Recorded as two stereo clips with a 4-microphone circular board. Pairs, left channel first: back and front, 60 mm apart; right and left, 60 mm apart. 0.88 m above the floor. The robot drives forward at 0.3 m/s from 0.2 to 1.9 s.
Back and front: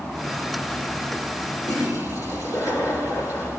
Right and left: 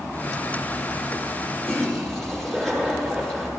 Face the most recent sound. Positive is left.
turn(degrees=-175)